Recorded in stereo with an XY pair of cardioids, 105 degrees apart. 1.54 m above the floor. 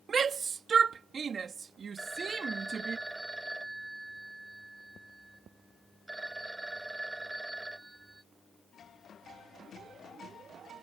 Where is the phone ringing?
10° right.